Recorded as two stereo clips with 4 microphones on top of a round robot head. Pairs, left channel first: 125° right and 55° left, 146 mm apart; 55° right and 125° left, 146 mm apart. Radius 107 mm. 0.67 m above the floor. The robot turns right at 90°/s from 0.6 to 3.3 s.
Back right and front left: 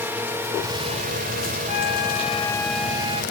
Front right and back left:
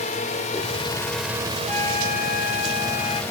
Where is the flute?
135° right; by 3.2 s 5° left.